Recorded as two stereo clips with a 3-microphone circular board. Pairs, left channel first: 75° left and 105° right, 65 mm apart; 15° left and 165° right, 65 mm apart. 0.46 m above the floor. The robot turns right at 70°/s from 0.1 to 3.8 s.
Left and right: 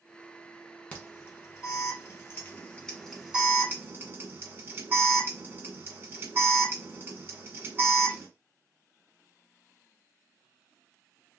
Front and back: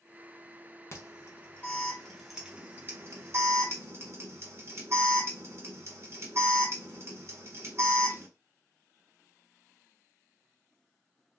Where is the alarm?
15° left, 1.3 m; by 8.3 s 140° right, 1.3 m.